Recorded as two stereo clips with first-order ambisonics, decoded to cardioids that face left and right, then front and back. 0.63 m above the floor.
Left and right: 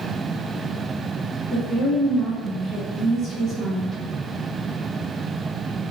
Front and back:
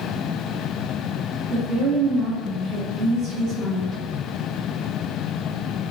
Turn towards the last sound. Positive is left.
turn(degrees=180)